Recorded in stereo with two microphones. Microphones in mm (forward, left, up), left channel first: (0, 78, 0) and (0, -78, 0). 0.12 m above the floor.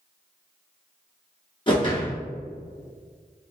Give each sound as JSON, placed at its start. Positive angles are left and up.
{"t": 1.7, "sound": "a whoosh", "side_deg": 30, "distance_m": 1.1}